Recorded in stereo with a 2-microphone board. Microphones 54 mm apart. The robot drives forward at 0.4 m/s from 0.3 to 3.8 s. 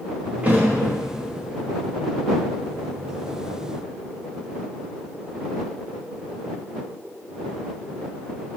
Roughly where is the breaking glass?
No breaking glass in this recording.